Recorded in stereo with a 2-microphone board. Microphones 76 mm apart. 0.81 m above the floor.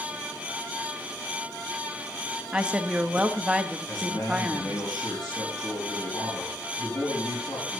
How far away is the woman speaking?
About 0.7 m.